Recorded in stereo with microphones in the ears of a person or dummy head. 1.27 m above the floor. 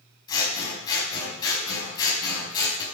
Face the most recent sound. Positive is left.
turn(degrees=25)  # may be behind; listen again after turning